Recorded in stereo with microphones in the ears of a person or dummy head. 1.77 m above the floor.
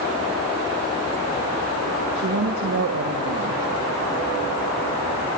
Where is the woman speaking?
85° right, 3 m.